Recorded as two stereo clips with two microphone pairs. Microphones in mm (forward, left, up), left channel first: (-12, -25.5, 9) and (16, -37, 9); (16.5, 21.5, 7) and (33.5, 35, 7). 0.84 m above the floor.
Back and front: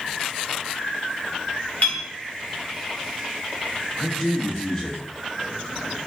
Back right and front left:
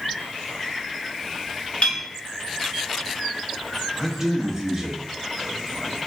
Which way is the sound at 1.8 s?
170° right.